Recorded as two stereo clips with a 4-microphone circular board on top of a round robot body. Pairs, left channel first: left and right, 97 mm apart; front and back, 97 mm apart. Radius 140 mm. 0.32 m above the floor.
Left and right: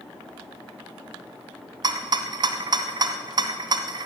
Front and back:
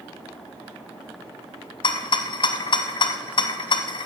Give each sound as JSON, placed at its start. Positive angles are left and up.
{"t": 1.8, "sound": "a rattle", "azimuth_deg": -40, "distance_m": 0.7}